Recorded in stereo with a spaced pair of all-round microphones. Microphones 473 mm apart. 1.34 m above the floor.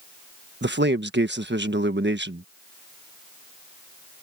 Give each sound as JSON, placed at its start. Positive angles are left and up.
{"t": 0.6, "sound": "a man speaking", "side_deg": -20}